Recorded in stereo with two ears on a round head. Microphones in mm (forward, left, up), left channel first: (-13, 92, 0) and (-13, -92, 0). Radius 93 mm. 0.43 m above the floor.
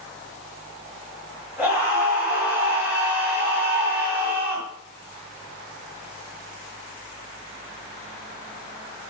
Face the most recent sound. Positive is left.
turn(degrees=-10)  # may be behind; listen again after turning